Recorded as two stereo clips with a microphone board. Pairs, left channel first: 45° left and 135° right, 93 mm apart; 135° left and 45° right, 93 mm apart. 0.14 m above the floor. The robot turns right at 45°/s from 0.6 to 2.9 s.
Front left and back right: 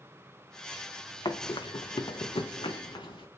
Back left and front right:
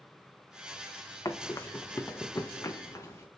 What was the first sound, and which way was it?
Running footsteps, 85° left.